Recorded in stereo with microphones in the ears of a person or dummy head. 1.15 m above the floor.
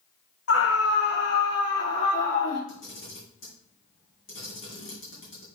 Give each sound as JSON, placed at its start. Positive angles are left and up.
{"t": 0.5, "sound": "a scream", "side_deg": 70, "distance_m": 0.9}
{"t": 2.7, "sound": "a camera shutter", "side_deg": 45, "distance_m": 4.0}